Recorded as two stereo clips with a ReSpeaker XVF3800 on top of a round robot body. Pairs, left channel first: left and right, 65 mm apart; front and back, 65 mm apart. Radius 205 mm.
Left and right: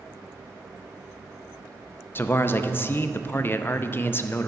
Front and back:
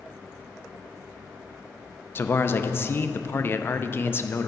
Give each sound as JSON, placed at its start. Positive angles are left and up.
{"t": 2.1, "sound": "a man speaking", "azimuth_deg": 45, "distance_m": 0.7}